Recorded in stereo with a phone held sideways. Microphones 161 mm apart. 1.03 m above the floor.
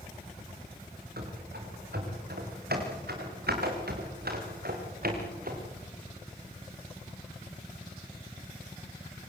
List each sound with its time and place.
1.2 s running footsteps: 75° right (ahead or behind), 6.5 m; by 5.7 s 65° right (ahead or behind), 5.5 m